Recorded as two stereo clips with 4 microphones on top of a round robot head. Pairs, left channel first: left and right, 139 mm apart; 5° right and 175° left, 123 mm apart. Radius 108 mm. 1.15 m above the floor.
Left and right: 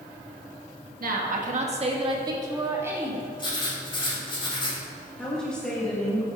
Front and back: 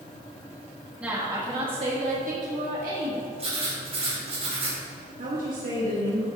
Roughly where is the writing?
Behind left.